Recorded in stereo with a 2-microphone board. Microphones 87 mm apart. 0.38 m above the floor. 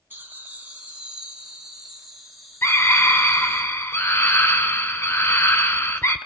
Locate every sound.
0.1 s laughter: 25° right (ahead or behind), 3 m; by 3.6 s 5° left (ahead or behind), 5 m
2.6 s a scream: 30° left (ahead or behind), 1.0 m